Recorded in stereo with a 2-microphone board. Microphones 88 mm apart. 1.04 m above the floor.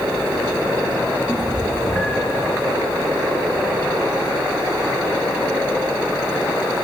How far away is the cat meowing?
About 7 m.